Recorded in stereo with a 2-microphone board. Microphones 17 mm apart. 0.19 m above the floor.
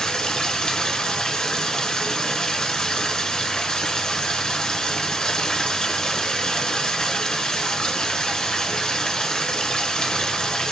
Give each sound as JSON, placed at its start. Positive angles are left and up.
{"t": 0.0, "sound": "running water", "side_deg": 50, "distance_m": 0.8}